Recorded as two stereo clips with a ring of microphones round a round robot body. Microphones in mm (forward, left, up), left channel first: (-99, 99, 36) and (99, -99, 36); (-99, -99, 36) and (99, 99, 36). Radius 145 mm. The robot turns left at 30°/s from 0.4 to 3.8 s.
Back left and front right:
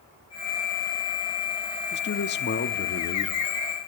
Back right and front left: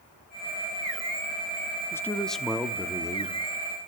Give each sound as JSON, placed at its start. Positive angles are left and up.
{"t": 1.9, "sound": "a man speaking", "azimuth_deg": 150, "distance_m": 0.8}